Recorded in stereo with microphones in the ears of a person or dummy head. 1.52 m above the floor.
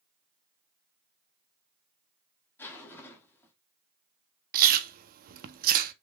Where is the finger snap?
I don't hear a finger snap.